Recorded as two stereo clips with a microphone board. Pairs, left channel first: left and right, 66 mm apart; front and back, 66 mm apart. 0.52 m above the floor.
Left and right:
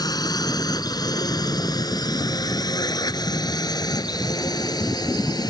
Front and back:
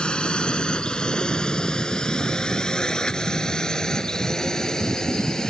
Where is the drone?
75° left; by 5.5 s 80° left.